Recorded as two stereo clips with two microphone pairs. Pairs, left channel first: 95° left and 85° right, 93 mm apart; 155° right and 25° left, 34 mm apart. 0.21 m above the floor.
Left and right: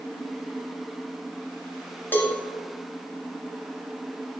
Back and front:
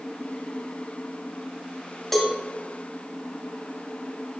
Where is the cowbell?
135° left, 1.3 m.